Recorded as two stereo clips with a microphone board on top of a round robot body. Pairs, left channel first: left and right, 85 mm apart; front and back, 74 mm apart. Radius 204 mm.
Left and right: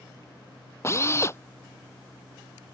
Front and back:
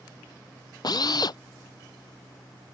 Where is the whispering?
No whispering in this recording.